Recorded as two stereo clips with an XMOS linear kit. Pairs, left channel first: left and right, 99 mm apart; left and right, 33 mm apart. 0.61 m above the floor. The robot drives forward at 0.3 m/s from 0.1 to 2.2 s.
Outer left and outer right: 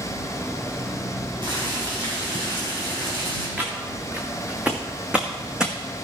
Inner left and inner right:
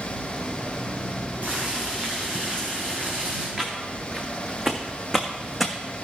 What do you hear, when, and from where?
1.4 s boiling: 50° right (ahead or behind), 5 m
3.6 s footsteps: 15° right (ahead or behind), 3 m; by 5.7 s 5° right (ahead or behind), 1.6 m